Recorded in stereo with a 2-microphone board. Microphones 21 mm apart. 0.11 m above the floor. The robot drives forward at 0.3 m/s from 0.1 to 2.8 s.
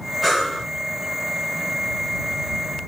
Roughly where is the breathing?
Centre.